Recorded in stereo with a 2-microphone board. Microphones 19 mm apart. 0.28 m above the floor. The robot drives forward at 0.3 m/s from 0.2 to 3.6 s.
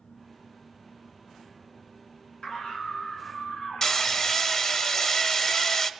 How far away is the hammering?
About 0.8 m.